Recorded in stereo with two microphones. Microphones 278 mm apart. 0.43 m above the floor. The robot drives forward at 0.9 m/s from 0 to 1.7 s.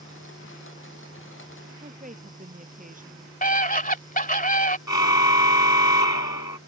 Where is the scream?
30° left (ahead or behind).